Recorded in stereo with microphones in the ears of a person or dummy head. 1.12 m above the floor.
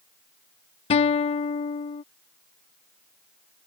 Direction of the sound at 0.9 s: 35° left (ahead or behind).